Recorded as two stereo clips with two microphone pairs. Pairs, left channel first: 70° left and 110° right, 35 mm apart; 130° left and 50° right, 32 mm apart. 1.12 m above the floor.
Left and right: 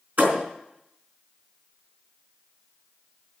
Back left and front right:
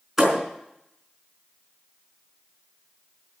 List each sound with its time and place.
0.2 s a thud: 135° right, 4 m